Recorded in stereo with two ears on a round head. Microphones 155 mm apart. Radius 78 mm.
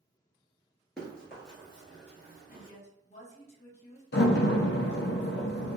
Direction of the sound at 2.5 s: 40° left (ahead or behind).